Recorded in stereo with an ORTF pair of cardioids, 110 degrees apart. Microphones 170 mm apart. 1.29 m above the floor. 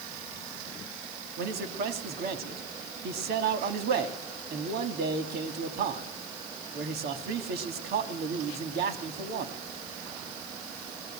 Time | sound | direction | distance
1.4 | a man speaking | 70° right | 2.5 m